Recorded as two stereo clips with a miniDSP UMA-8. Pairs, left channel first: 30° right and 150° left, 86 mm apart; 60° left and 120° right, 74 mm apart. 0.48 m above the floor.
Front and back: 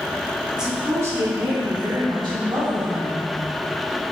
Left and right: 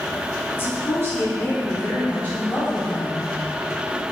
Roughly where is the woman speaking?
Ahead left.